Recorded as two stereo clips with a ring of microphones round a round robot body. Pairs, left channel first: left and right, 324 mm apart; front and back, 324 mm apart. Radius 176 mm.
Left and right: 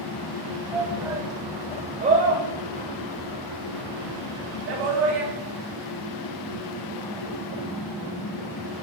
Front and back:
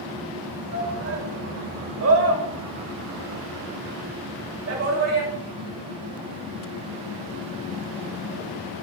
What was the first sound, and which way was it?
A shout, 170° right.